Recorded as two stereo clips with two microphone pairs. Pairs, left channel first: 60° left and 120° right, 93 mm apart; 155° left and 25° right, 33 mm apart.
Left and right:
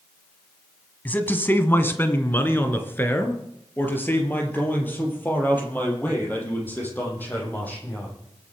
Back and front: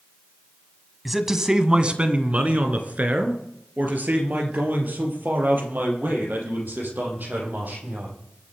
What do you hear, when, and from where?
1.1 s a man speaking: 55° left, 1.2 m; by 8.1 s 10° right, 7 m